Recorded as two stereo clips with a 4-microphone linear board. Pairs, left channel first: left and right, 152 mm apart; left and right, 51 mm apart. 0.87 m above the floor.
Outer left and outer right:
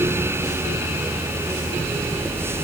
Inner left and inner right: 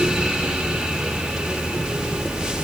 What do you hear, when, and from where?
Only background noise.